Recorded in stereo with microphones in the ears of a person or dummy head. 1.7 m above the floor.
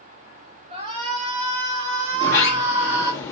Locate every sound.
0.7 s a shout: 40° right (ahead or behind), 4.5 m; by 3.1 s 20° right (ahead or behind), 3.5 m
2.1 s a sliding door: 20° left (ahead or behind), 1.1 m